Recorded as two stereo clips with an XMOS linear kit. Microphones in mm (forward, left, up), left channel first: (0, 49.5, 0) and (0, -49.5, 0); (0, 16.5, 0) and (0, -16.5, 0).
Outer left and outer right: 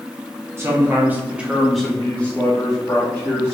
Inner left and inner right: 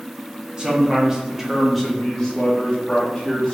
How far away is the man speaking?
About 1.1 m.